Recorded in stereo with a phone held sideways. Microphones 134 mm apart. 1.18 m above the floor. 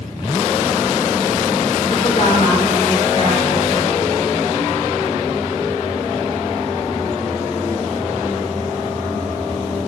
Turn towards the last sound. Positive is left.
turn(degrees=45)  # may be behind; listen again after turning